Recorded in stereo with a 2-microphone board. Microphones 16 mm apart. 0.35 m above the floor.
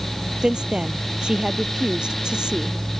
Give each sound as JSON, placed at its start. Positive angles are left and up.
{"t": 0.4, "sound": "a woman speaking", "side_deg": -70}